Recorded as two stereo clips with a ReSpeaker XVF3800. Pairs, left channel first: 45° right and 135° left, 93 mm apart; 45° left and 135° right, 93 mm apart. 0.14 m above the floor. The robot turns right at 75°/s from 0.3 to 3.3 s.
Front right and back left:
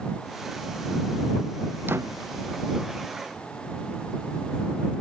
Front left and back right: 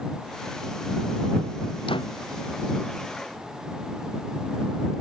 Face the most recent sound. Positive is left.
turn(degrees=175)